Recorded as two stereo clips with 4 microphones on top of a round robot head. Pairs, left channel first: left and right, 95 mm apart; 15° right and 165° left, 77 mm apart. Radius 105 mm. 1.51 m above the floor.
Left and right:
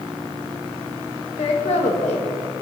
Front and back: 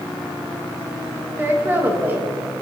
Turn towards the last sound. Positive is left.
turn(degrees=105)